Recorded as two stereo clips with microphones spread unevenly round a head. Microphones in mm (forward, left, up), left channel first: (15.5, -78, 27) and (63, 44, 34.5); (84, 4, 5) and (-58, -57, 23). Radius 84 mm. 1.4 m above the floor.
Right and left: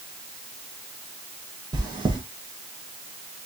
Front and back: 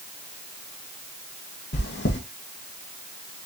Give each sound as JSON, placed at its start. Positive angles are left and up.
{"t": 1.7, "sound": "chewing", "azimuth_deg": 10, "distance_m": 1.6}